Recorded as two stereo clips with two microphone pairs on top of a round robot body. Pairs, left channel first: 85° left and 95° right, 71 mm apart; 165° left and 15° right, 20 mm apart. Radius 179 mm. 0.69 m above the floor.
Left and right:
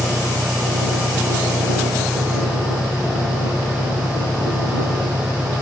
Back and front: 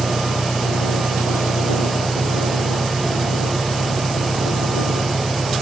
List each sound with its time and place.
0.0 s an engine running: 165° right